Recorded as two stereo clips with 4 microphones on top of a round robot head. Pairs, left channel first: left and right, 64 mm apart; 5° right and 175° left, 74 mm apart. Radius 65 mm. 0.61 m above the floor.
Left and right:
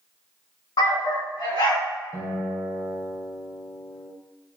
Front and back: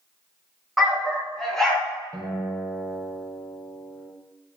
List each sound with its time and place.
0.8 s a dog barking: 90° left, 2.5 m; by 1.9 s 75° left, 3 m
2.1 s a guitar: 70° left, 2.5 m